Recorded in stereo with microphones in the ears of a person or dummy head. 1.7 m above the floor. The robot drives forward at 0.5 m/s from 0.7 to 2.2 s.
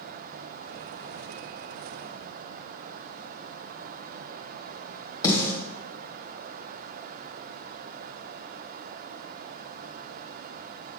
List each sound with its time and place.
5.2 s a snare drum: 20° left (ahead or behind), 1.6 m